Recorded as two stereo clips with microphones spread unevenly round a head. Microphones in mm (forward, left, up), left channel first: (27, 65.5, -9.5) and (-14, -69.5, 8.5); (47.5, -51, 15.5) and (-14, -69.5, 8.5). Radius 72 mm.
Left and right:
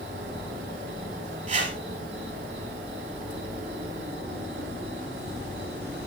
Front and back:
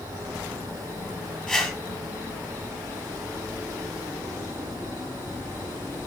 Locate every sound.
0.0 s an insect: 140° right, 6.5 m
1.5 s a whoosh: 65° right, 3 m